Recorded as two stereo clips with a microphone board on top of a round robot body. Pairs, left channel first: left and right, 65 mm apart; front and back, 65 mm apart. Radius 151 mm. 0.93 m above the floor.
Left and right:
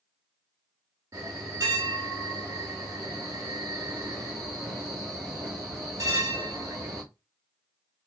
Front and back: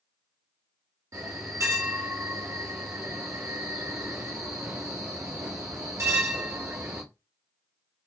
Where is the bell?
140° right, 0.6 m.